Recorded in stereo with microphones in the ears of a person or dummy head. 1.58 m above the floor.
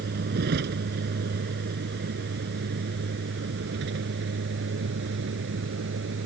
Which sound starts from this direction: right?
A vehicle, at 0.0 s.